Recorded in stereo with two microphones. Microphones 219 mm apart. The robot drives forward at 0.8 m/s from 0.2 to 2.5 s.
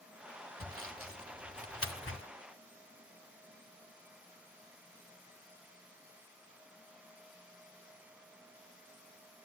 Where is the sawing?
70° left (ahead or behind), 2.5 m.